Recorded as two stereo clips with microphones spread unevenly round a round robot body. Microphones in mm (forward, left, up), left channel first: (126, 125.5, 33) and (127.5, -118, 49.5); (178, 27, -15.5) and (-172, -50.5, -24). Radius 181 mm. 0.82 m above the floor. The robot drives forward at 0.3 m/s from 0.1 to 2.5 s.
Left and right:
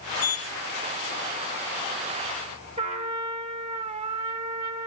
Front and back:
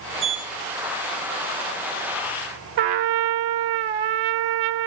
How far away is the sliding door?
About 8 m.